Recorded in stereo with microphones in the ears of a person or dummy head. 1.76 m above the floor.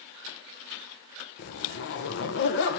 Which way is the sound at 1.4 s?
55° left (ahead or behind).